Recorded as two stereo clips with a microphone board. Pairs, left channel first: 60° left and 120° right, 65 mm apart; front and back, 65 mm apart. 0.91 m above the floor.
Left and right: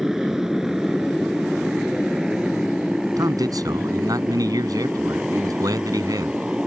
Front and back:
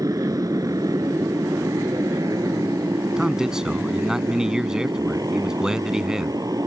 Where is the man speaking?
100° right.